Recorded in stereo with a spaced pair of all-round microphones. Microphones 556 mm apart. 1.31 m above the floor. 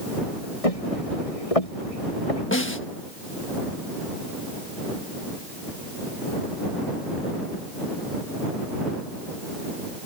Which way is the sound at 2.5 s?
20° left (ahead or behind).